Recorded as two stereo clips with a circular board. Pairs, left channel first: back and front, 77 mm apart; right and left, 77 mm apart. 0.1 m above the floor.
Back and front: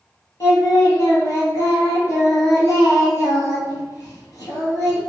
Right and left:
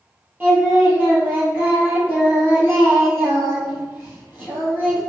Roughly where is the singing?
Behind left.